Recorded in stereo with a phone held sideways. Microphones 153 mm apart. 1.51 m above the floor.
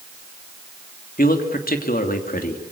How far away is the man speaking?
About 3 m.